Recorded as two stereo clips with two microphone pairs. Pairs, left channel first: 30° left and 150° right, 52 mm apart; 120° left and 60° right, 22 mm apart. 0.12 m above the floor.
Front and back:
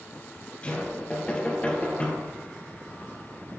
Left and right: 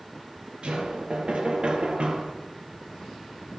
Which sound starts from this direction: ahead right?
Knocking, at 0.6 s.